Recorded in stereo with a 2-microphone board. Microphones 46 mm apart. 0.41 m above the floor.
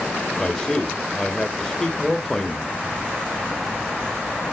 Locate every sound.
0.4 s a man speaking: 10° left (ahead or behind), 1.2 m